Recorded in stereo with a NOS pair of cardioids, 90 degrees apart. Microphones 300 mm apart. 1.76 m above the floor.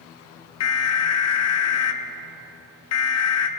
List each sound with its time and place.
0.6 s an alarm: 55° left, 0.8 m